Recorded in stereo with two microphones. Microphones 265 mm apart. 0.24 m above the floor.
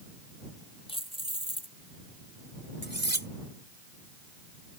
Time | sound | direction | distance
0.9 | keys jangling | 20° left (ahead or behind) | ?
2.8 | cutlery clinking | 45° right (ahead or behind) | ?